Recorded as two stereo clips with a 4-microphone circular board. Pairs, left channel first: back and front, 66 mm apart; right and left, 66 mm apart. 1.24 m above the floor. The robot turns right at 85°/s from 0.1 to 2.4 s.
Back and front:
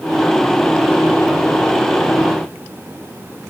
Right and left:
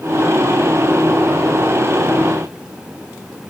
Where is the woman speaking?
No woman speaking in this recording.